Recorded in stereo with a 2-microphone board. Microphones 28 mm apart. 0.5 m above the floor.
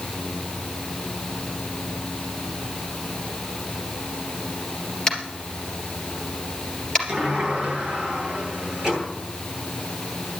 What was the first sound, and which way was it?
Tapping, 15° left (ahead or behind).